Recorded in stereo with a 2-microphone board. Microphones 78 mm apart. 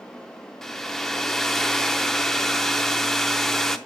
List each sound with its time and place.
0.6 s a hair dryer: 5° left (ahead or behind), 0.6 m